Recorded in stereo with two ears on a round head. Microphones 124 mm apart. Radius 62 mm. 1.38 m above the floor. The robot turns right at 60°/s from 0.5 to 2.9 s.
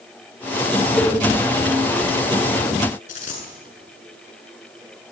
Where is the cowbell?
Centre (ahead or behind), 2 m; by 1.2 s 15° left (ahead or behind), 2 m.